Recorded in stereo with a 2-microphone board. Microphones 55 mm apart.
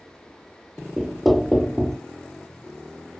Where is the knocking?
Centre (ahead or behind), 0.6 m.